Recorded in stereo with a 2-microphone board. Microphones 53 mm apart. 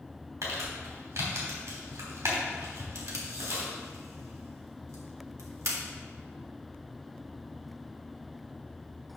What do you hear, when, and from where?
0.4 s crumpling: 80° right, 3 m
3.0 s tape being pulled: 70° right (ahead or behind), 1.7 m